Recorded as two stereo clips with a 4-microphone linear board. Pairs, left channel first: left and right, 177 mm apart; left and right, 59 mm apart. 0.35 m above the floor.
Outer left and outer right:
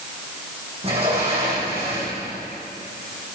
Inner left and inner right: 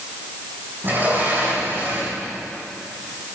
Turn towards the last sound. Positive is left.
turn(degrees=-35)  # may be behind; listen again after turning